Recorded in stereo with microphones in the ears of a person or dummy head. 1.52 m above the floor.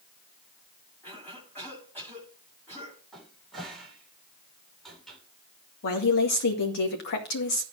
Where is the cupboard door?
Centre (ahead or behind), 4 m.